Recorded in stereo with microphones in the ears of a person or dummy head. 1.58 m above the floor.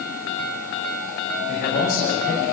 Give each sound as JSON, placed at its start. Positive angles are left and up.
{"t": 1.5, "sound": "a man speaking", "side_deg": 50, "distance_m": 6.0}